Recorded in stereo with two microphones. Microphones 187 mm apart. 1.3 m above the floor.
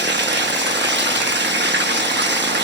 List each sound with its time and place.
0.0 s running water: 70° right (ahead or behind), 1.1 m